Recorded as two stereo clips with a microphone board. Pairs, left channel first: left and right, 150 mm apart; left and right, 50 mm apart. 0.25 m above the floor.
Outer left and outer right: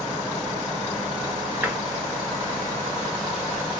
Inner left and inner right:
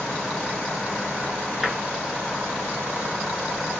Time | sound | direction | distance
1.6 | tapping | 15° right (ahead or behind) | 0.9 m